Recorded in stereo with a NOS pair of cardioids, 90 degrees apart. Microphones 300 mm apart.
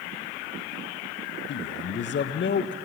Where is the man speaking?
40° left, 0.6 m.